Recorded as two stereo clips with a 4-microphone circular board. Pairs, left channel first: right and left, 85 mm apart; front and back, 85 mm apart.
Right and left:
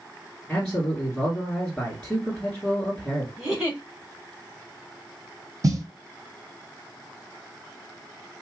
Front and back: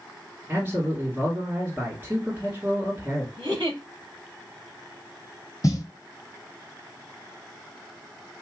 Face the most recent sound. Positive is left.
turn(degrees=45)